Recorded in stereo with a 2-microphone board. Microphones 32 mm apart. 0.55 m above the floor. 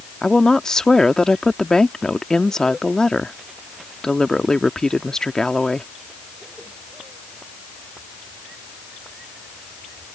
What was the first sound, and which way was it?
A woman speaking, 20° left (ahead or behind).